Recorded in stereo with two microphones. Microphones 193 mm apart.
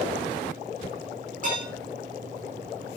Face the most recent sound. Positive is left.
turn(degrees=-40)  # may be behind; listen again after turning